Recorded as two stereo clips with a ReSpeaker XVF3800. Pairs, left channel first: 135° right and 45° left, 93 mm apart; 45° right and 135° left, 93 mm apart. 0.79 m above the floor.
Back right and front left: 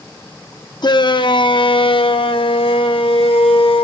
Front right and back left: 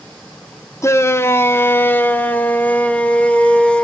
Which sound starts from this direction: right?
A shout, at 0.8 s.